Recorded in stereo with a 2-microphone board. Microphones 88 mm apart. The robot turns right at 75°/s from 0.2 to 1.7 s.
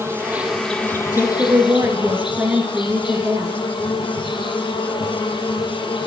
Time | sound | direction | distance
0.0 | an insect | 30° right | 1.9 m
1.1 | a woman speaking | 175° left | 1.7 m